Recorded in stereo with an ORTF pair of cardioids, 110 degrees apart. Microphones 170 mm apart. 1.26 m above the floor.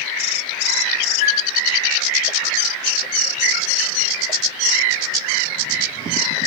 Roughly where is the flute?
Ahead left.